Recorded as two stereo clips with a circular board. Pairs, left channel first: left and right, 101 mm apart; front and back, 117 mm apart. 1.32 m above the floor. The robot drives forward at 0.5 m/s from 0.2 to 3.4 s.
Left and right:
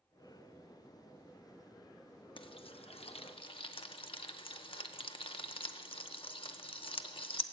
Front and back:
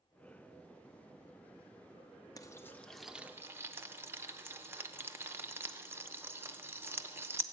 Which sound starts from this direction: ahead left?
Frying, at 2.4 s.